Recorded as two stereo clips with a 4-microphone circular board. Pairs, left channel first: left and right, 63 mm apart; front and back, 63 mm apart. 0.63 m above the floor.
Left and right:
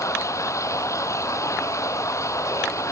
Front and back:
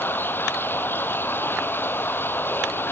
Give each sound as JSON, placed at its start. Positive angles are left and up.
{"t": 0.0, "sound": "running water", "azimuth_deg": 55}